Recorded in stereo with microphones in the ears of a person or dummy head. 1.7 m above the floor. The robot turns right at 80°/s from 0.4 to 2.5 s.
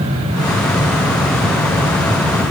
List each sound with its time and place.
Only background noise.